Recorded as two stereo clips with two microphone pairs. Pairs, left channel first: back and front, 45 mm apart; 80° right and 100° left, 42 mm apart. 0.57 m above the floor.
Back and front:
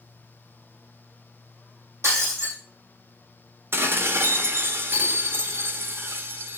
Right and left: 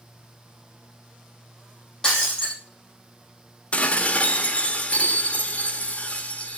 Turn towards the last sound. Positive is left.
turn(degrees=-30)